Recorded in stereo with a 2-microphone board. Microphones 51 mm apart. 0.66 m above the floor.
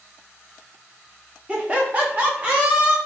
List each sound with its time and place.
1.5 s laughter: 25° right (ahead or behind), 0.6 m; by 3.0 s 30° right (ahead or behind), 1.2 m